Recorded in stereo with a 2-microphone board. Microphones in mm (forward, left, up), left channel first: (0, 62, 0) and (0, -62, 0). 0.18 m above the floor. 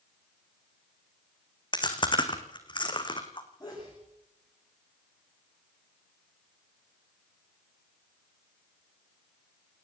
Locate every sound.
1.7 s chewing: 40° left (ahead or behind), 2.5 m
3.6 s a sneeze: 30° left (ahead or behind), 8.5 m